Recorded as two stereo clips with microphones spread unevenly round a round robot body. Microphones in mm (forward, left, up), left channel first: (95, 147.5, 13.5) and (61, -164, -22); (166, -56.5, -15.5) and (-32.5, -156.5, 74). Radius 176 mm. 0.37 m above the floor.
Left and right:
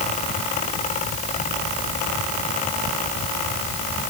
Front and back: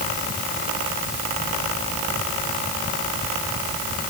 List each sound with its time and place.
Only background noise.